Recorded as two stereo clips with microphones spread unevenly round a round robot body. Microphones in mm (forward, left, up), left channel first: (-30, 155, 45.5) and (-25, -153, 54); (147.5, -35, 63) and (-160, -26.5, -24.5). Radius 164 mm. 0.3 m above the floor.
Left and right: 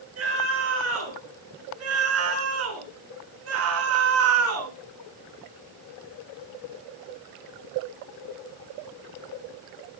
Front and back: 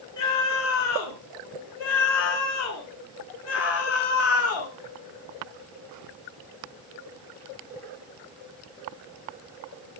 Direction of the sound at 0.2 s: 40° right.